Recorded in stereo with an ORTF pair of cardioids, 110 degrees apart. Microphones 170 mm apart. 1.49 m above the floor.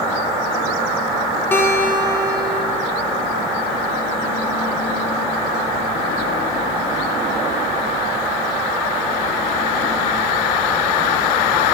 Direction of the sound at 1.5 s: 15° left.